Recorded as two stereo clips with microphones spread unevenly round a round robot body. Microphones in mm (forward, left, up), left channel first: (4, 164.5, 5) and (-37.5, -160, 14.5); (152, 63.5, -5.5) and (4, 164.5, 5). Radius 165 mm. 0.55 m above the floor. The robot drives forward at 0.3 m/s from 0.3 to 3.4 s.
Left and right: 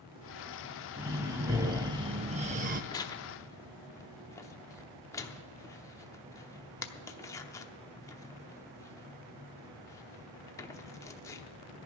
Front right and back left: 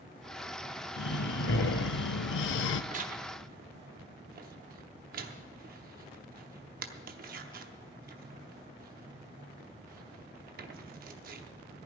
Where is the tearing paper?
150° left, 0.7 m; by 11.5 s 160° left, 0.8 m.